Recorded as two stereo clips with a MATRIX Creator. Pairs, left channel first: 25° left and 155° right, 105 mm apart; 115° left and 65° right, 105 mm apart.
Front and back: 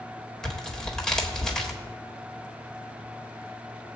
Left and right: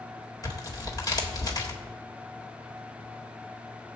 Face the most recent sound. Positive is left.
turn(degrees=105)